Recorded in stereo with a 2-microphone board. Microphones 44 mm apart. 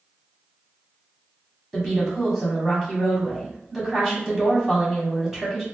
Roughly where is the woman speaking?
Centre.